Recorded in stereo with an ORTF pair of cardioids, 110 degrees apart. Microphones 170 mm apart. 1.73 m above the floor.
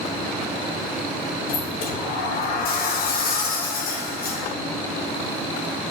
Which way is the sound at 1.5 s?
65° left.